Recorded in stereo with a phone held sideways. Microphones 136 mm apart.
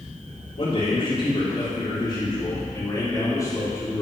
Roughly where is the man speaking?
Left.